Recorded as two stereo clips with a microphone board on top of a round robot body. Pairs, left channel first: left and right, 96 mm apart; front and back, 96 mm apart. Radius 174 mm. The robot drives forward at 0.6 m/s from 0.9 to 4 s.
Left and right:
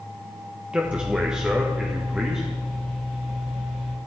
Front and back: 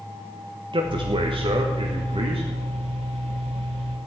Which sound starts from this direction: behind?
A man speaking, at 0.7 s.